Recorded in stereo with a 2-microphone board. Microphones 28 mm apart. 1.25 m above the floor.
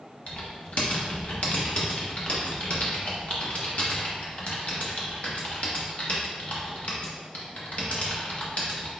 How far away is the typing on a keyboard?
About 0.9 m.